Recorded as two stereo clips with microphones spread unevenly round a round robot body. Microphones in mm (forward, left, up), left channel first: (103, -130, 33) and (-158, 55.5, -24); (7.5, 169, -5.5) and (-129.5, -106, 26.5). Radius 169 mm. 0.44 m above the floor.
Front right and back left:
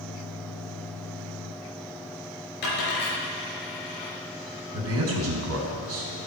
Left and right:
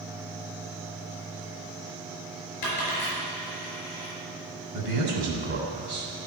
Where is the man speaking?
175° right, 3 m.